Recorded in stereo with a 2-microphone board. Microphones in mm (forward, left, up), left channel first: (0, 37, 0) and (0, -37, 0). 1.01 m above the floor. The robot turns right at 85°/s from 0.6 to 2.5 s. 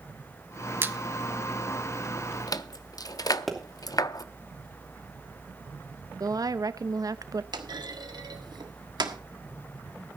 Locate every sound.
0.8 s a squeak: 30° right (ahead or behind), 0.7 m; by 4.2 s 55° left (ahead or behind), 0.7 m
3.5 s a pop: centre (ahead or behind), 3 m
6.2 s a woman speaking: 55° right (ahead or behind), 0.7 m
7.5 s a clunk: 70° right (ahead or behind), 1.5 m